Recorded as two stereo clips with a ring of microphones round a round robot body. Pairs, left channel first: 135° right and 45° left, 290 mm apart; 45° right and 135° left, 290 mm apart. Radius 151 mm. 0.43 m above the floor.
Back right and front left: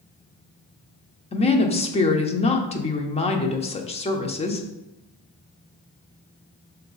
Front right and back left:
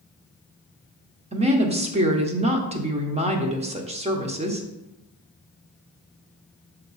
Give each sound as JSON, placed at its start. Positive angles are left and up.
{"t": 1.3, "sound": "a woman speaking", "azimuth_deg": 180, "distance_m": 0.8}